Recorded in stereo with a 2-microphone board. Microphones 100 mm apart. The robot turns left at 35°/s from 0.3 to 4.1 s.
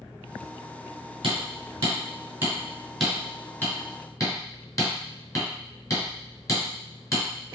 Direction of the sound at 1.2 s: 55° right (ahead or behind).